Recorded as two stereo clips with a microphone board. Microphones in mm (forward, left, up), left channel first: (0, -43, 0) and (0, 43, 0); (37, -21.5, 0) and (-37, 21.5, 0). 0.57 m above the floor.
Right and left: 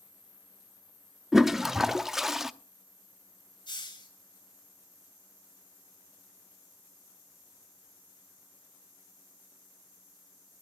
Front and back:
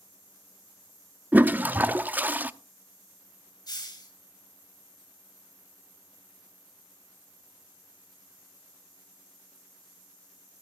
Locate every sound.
1.3 s a toilet flushing: 170° left, 0.6 m
3.7 s a hiss: 65° right, 3.5 m